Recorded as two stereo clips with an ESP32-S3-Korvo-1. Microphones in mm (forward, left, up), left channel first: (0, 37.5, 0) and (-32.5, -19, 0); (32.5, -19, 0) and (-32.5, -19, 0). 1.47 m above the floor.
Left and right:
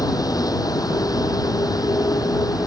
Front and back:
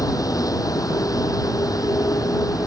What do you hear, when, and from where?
0.0 s a vehicle: 35° left